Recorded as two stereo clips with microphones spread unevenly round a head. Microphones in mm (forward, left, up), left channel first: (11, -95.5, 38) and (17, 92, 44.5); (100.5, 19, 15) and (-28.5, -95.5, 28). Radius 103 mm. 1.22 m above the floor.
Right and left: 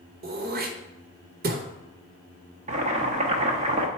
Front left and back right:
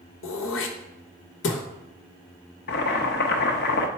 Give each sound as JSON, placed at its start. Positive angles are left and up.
{"t": 0.2, "sound": "throat clearing", "azimuth_deg": 45, "distance_m": 1.0}
{"t": 2.7, "sound": "boiling", "azimuth_deg": 45, "distance_m": 0.8}